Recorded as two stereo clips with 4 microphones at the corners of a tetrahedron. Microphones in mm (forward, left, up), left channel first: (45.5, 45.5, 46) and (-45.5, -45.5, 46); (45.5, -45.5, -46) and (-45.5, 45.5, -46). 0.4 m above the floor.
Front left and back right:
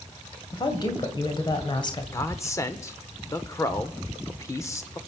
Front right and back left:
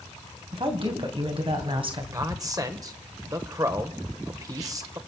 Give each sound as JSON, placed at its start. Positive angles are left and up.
{"t": 0.5, "sound": "a woman speaking", "azimuth_deg": 95, "distance_m": 2.0}
{"t": 2.1, "sound": "a man speaking", "azimuth_deg": 100, "distance_m": 1.3}